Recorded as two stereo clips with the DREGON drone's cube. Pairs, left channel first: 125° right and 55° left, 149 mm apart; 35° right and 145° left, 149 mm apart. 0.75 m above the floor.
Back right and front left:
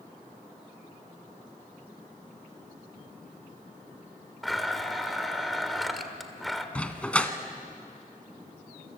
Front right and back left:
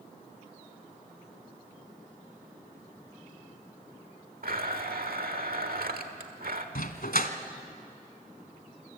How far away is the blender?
About 1.4 m.